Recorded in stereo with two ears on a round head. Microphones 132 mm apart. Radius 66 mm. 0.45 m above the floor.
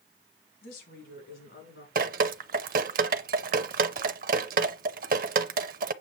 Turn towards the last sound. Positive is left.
turn(degrees=-65)  # may be behind; listen again after turning